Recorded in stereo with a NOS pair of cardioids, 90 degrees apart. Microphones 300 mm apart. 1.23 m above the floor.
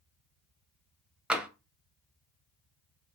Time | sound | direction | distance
1.3 | tapping | 5° right | 0.5 m